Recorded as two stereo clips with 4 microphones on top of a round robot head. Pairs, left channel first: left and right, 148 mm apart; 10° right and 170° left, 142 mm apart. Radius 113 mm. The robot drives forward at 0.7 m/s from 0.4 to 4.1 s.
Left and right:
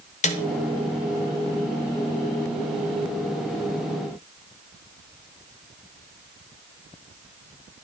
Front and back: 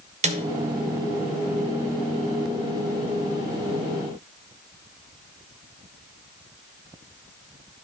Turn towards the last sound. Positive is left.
turn(degrees=165)